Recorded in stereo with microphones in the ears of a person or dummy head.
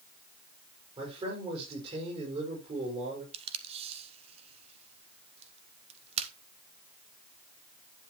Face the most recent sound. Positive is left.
turn(degrees=-35)  # may be behind; listen again after turning